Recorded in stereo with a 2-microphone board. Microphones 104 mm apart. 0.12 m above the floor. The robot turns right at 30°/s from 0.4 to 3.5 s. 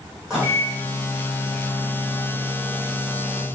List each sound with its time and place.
0.3 s a microwave: 175° right, 3 m; by 3.5 s 80° right, 3 m